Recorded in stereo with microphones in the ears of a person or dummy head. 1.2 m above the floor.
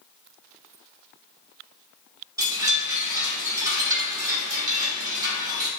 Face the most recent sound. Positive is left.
turn(degrees=-20)  # may be behind; listen again after turning